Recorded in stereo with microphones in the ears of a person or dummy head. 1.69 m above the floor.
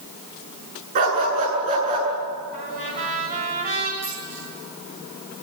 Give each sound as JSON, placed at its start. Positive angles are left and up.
{"t": 0.9, "sound": "a dog barking", "side_deg": -45, "distance_m": 8.0}
{"t": 2.5, "sound": "a trumpet", "side_deg": -45, "distance_m": 8.0}
{"t": 4.0, "sound": "a dropped coin", "side_deg": -15, "distance_m": 8.5}